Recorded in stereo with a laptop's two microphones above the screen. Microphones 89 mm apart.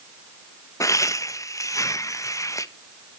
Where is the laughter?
35° left (ahead or behind), 1.0 m.